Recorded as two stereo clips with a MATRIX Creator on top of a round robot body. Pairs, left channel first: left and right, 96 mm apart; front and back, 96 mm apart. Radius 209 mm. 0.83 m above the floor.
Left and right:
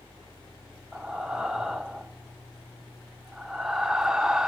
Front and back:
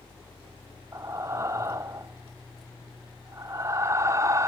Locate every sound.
0.9 s breathing: 170° right, 0.8 m